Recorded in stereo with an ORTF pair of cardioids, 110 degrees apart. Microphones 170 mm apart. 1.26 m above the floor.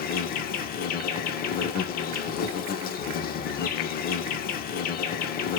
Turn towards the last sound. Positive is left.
turn(degrees=60)